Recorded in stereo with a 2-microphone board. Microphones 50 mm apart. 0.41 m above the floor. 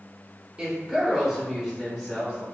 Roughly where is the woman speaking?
Centre.